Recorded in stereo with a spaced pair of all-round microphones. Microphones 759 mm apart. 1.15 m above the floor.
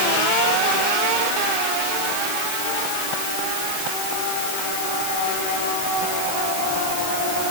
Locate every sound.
Only background noise.